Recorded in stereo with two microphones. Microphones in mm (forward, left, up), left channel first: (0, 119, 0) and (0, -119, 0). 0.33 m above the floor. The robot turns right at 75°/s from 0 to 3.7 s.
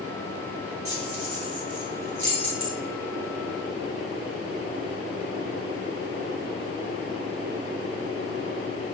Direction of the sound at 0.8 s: 65° right (ahead or behind).